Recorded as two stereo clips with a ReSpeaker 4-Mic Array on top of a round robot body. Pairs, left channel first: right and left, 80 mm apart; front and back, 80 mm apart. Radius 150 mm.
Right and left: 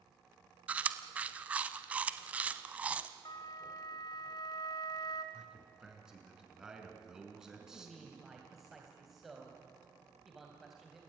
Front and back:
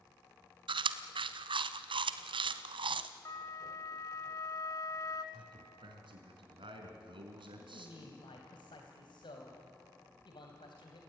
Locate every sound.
0.7 s chewing: 165° left, 0.7 m
3.2 s a flute: 50° right, 1.4 m
5.3 s a man speaking: 170° left, 4.5 m
7.6 s a man speaking: straight ahead, 3 m